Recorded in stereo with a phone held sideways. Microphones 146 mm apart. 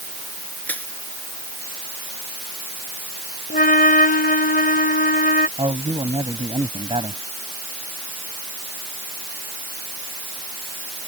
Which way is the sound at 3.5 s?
85° left.